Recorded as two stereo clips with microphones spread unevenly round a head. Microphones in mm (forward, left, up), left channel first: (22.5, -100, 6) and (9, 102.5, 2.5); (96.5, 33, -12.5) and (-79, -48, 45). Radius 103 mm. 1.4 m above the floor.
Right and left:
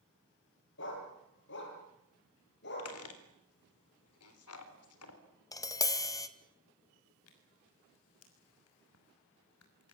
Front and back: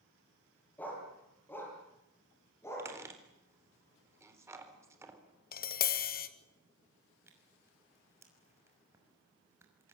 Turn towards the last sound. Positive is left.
turn(degrees=-80)